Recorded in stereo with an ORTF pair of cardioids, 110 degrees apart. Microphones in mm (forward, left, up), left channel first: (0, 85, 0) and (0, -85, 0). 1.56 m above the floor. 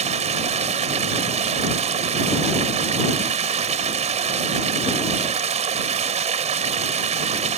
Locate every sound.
0.0 s running water: 40° right